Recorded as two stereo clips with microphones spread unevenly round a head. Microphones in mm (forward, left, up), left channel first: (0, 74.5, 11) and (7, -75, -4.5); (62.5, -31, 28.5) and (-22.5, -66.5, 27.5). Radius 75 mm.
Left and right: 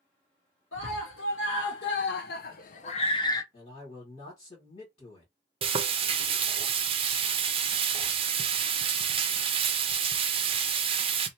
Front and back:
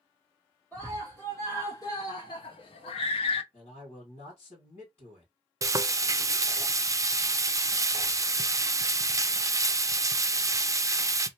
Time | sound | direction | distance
0.7 | a scream | 100° left | 1.4 m
3.5 | a man speaking | 40° left | 2 m
5.6 | frying | 115° right | 0.5 m